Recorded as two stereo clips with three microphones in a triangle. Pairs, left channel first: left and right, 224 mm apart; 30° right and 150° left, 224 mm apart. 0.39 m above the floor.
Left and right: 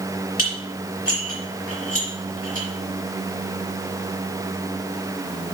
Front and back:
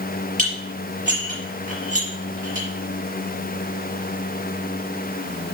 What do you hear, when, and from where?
0.4 s dishes clattering: 95° left, 4.5 m